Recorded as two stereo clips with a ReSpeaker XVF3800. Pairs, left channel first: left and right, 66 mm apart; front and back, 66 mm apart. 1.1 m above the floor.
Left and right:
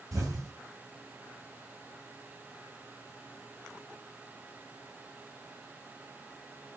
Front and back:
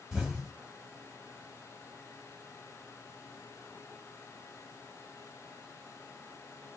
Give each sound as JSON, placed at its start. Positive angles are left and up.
{"t": 0.1, "sound": "an explosion", "azimuth_deg": -105, "distance_m": 1.5}